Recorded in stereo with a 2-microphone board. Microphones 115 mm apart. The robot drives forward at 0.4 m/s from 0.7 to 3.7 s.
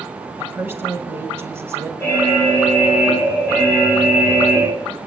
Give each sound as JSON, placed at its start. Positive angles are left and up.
{"t": 0.4, "sound": "a woman speaking", "side_deg": -20, "distance_m": 1.5}
{"t": 2.0, "sound": "an alarm", "side_deg": -25, "distance_m": 3.5}